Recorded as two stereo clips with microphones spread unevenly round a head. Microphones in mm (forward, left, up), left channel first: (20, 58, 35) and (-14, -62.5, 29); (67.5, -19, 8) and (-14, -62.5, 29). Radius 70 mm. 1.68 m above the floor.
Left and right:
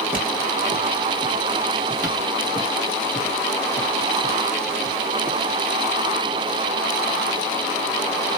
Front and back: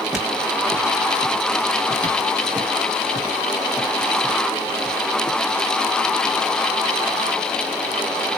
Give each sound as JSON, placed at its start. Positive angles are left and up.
{"t": 0.1, "sound": "footsteps", "azimuth_deg": -100, "distance_m": 1.8}